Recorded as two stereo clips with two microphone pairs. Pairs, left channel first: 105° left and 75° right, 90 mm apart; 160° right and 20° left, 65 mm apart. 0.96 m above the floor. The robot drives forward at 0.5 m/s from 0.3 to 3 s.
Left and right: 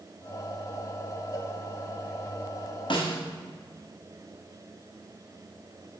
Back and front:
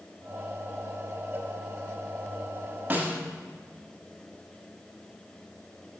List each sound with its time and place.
1.3 s a cowbell: 65° left, 1.0 m; by 1.5 s 75° left, 1.0 m
2.9 s a snare drum: 85° left, 1.2 m